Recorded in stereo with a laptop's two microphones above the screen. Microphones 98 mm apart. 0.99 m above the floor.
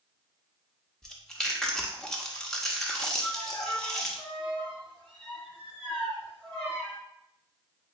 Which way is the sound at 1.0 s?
5° left (ahead or behind).